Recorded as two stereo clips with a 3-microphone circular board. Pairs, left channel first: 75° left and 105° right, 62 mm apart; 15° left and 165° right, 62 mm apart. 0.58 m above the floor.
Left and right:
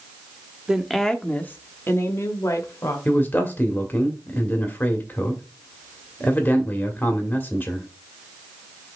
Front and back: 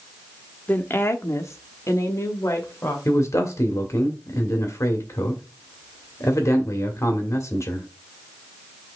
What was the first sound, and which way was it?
A woman speaking, 30° right.